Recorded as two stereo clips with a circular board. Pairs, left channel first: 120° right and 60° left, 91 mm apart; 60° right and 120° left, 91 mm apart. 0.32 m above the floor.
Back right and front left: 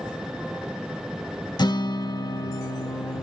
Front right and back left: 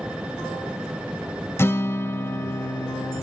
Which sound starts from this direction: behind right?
A guitar, at 1.6 s.